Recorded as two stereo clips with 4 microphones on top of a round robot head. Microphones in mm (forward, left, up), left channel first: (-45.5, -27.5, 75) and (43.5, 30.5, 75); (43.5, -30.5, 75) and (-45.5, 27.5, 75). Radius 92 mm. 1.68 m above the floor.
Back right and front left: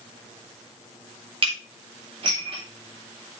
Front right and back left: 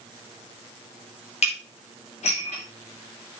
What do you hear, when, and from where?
1.4 s dishes clattering: 10° right, 3.5 m